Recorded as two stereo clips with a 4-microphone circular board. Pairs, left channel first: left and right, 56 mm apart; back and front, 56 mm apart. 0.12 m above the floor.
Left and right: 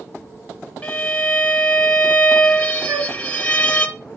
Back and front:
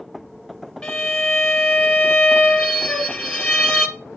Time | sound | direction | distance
0.8 | a violin | 120° left | 1.1 m
2.9 | a flute | 115° right | 1.6 m